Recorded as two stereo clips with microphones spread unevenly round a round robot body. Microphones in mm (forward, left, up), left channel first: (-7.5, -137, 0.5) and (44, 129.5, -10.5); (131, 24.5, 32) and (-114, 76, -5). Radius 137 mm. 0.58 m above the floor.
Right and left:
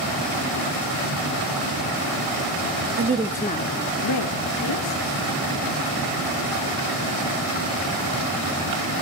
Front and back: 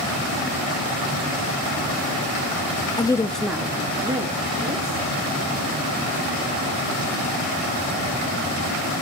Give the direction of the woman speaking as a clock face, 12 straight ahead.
10 o'clock.